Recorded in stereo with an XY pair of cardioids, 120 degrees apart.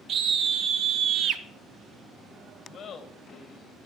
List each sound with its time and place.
0.1 s a scream: 55° right, 1.7 m; by 1.4 s 65° right, 1.0 m
2.7 s laughter: 55° left, 1.6 m